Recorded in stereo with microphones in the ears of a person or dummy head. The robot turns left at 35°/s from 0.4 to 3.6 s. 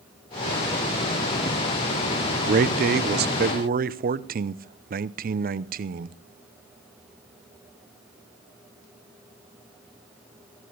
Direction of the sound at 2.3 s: 65° right.